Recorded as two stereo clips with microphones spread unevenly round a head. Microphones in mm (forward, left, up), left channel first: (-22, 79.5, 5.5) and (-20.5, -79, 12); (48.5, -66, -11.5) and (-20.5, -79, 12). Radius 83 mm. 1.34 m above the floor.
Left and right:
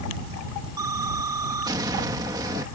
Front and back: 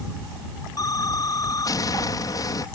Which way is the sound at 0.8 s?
20° right.